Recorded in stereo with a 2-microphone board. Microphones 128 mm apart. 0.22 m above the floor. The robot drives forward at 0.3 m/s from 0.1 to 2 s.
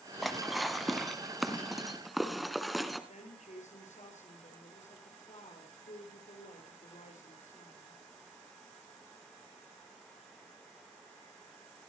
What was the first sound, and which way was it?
Dishes clattering, centre (ahead or behind).